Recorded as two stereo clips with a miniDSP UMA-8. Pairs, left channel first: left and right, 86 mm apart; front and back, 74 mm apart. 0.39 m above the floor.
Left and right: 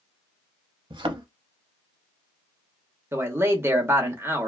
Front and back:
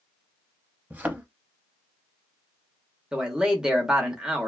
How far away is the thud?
About 0.6 m.